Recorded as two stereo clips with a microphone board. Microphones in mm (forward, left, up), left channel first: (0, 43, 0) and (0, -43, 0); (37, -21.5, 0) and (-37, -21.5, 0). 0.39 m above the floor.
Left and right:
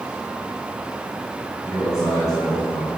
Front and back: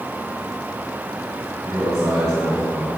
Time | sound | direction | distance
1.6 | a man speaking | 140° left | 4.5 m